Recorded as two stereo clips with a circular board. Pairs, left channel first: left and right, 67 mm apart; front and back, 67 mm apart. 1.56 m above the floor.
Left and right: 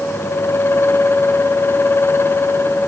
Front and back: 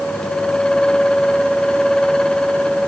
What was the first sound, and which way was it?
Only background noise.